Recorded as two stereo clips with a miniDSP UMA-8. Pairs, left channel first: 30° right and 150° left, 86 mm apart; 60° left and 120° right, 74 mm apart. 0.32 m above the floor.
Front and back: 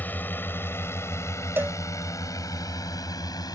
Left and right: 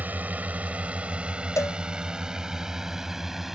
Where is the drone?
80° right; by 3.5 s 35° right.